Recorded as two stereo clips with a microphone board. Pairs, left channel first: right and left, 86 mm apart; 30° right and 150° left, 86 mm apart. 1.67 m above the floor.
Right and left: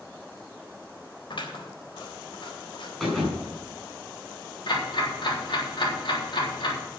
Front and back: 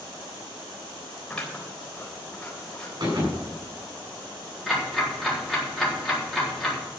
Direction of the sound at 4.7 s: 120° right.